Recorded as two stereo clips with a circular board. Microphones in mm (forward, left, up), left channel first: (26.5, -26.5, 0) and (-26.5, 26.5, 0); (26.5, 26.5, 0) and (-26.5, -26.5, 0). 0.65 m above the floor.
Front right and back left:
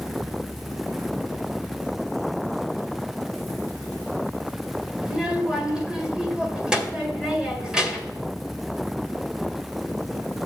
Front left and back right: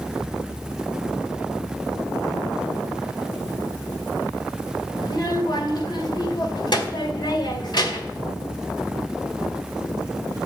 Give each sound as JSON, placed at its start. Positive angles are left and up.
{"t": 5.0, "sound": "a child speaking", "azimuth_deg": 55, "distance_m": 1.9}